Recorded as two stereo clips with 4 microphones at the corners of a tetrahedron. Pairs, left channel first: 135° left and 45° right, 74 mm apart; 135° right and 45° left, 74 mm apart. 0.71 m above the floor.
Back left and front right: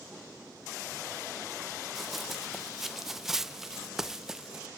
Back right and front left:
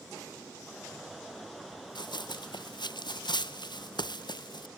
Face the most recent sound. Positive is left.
turn(degrees=-130)